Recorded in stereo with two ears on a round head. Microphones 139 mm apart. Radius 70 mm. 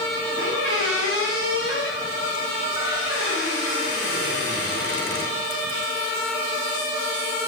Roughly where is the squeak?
Left.